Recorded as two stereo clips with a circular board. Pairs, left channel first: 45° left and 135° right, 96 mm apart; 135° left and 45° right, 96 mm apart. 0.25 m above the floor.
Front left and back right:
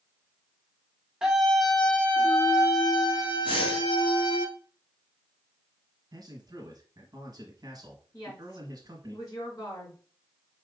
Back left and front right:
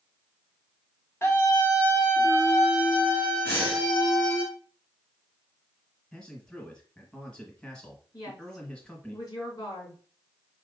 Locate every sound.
1.2 s a scream: 155° left, 1.0 m; by 4.5 s 65° left, 1.9 m
3.5 s breathing: 65° left, 1.9 m
6.1 s a man speaking: 150° right, 1.2 m
8.1 s a woman speaking: 90° left, 3 m